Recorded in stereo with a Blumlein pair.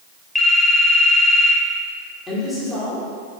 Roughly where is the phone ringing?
Ahead.